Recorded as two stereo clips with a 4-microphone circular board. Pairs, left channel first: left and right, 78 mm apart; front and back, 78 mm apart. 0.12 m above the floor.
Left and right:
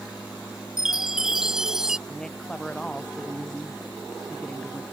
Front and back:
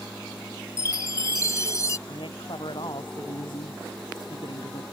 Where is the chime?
10° right.